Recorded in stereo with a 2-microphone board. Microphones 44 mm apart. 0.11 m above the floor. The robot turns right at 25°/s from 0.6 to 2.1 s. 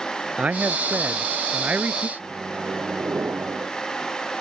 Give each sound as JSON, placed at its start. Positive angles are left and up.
{"t": 0.4, "sound": "a man speaking", "azimuth_deg": -115}
{"t": 2.2, "sound": "a microwave", "side_deg": -65}